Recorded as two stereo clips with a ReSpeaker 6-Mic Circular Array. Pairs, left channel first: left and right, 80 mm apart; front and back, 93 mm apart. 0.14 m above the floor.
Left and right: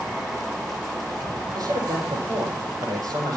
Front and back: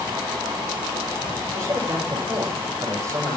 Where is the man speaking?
125° right, 6.5 m.